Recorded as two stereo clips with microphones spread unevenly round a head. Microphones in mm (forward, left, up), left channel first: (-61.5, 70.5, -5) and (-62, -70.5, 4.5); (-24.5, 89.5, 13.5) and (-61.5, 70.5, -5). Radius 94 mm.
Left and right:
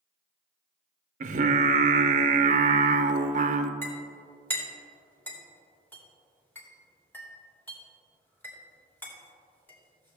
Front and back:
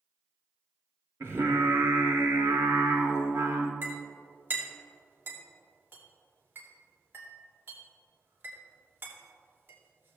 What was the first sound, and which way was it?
Singing, 85° right.